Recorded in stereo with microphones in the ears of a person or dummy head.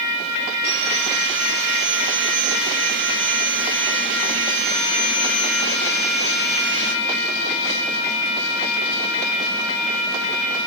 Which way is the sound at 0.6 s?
60° right (ahead or behind).